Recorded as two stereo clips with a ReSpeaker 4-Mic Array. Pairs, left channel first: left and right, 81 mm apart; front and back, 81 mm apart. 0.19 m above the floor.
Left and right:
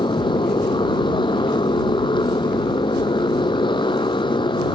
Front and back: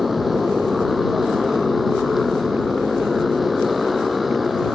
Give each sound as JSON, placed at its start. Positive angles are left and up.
{"t": 0.0, "sound": "a motorcycle", "azimuth_deg": 90}